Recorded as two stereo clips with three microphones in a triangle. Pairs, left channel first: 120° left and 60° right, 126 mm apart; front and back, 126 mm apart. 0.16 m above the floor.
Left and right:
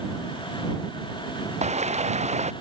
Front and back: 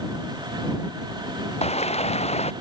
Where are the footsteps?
35° right.